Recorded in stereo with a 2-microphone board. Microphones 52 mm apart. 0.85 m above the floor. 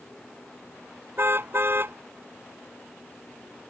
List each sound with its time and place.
1.2 s a car horn: 45° right (ahead or behind)